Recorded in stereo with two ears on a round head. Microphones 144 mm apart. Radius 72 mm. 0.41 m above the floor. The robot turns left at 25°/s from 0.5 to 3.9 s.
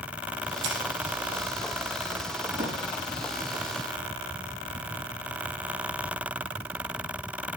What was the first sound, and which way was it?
Scissors, 70° right (ahead or behind).